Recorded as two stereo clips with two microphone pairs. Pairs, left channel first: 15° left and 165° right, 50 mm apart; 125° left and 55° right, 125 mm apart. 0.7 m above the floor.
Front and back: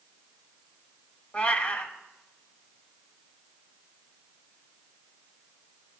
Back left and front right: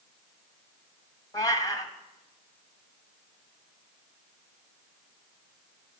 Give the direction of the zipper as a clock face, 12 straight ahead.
No zipper in this recording.